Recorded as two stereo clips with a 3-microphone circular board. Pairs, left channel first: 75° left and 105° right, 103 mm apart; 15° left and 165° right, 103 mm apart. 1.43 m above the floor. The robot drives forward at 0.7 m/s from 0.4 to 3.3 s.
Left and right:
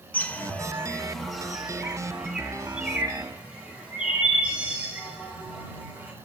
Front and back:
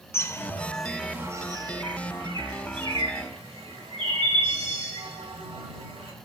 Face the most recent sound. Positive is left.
turn(degrees=175)